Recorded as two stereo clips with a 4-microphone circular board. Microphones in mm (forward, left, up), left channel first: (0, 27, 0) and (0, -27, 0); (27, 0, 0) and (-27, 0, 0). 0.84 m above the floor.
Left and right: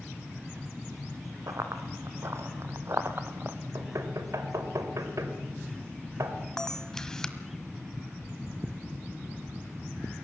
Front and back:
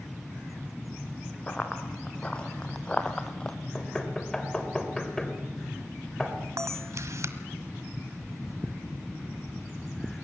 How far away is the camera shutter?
About 1.3 m.